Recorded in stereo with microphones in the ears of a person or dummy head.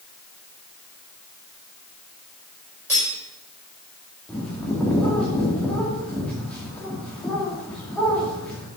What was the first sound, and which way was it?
Cutlery clinking, 10° right (ahead or behind).